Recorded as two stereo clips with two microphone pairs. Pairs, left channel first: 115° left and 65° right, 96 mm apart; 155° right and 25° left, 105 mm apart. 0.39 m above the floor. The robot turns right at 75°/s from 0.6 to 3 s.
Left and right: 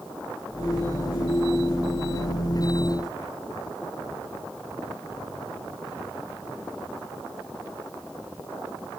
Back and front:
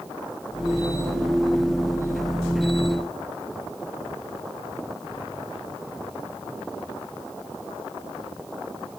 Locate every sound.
Only background noise.